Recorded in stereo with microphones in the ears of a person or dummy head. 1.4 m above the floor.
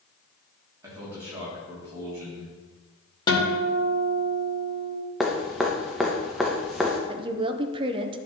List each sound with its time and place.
0.8 s a man speaking: 20° right (ahead or behind), 2.5 m
3.3 s a guitar: 20° left (ahead or behind), 1.7 m
5.2 s dripping: centre (ahead or behind), 0.7 m
7.1 s a woman speaking: 30° right (ahead or behind), 0.6 m